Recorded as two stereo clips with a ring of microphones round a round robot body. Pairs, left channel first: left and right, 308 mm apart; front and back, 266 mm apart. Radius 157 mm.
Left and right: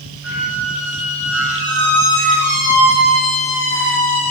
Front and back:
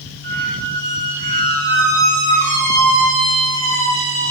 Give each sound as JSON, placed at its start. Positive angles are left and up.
{"t": 0.2, "sound": "a squeak", "azimuth_deg": 145, "distance_m": 1.9}